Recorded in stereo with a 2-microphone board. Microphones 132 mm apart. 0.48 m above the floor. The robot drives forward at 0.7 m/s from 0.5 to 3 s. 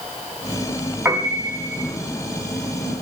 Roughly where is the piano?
Centre.